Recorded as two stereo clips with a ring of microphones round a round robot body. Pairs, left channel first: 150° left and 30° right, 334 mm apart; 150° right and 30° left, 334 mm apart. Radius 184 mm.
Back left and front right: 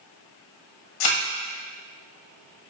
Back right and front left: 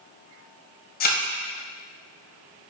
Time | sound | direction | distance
1.0 | a thud | 145° left | 1.4 m